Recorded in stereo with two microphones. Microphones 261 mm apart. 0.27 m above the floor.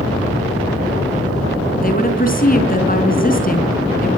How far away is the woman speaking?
About 3.5 m.